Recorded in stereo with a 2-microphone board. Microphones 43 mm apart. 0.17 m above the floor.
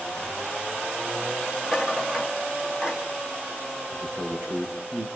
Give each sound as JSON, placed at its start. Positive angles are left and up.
{"t": 1.6, "sound": "a rattle", "side_deg": -20, "distance_m": 3.0}
{"t": 3.9, "sound": "a man speaking", "side_deg": -65, "distance_m": 4.0}